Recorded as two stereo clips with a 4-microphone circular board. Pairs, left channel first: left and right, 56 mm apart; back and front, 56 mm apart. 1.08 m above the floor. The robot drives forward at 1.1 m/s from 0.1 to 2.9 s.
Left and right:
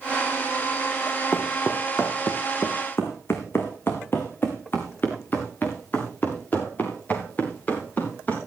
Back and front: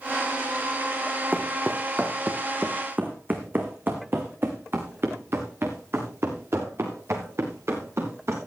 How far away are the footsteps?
About 3 m.